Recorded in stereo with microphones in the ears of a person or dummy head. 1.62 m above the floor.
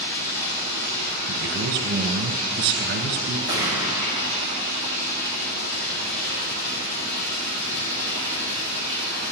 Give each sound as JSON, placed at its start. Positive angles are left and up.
{"t": 0.0, "sound": "running water", "side_deg": 60, "distance_m": 3.5}
{"t": 1.3, "sound": "a man speaking", "side_deg": -65, "distance_m": 1.2}
{"t": 3.5, "sound": "a gunshot", "side_deg": 65, "distance_m": 2.5}